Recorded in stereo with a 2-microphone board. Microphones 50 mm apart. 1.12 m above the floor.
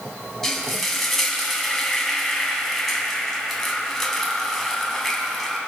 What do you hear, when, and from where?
0.4 s frying: 10° left (ahead or behind), 2 m